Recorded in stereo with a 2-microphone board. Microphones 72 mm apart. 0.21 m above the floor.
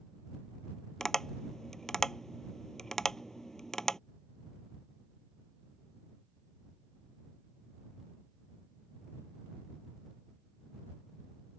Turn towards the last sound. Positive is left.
turn(degrees=5)  # may be behind; listen again after turning